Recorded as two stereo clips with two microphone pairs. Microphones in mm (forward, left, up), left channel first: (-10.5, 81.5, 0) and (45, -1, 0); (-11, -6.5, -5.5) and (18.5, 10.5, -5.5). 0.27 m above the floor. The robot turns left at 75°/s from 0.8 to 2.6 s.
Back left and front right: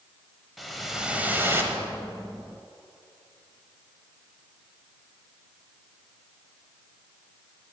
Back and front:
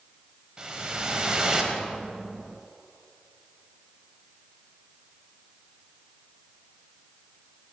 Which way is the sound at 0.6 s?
35° left.